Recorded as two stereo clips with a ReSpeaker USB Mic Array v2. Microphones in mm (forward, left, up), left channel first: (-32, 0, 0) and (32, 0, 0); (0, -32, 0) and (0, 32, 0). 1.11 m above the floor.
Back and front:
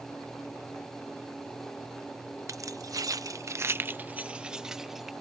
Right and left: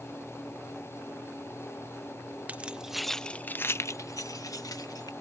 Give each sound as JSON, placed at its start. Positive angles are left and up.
{"t": 2.5, "sound": "keys jangling", "azimuth_deg": 25}